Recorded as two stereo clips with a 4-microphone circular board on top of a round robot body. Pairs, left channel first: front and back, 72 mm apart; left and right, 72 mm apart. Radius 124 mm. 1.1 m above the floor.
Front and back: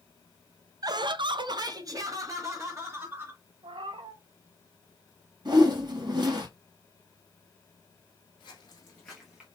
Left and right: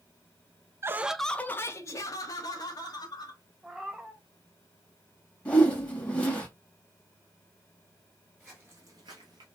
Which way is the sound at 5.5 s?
165° left.